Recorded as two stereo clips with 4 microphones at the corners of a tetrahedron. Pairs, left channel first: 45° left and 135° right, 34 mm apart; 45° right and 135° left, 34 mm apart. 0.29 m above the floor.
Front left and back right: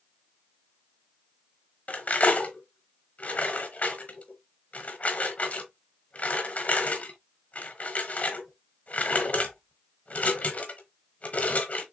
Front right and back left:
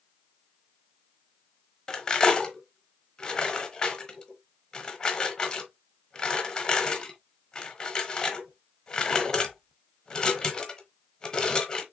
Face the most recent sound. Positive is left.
turn(degrees=20)